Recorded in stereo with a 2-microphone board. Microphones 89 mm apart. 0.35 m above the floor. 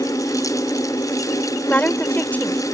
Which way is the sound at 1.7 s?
20° left (ahead or behind).